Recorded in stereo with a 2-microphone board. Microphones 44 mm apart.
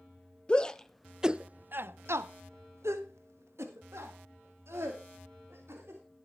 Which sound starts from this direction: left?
A shout, at 0.5 s.